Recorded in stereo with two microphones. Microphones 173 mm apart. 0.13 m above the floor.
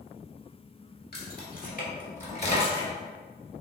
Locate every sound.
1.1 s keys jangling: 60° left (ahead or behind), 1.4 m; by 2.9 s 30° left (ahead or behind), 1.3 m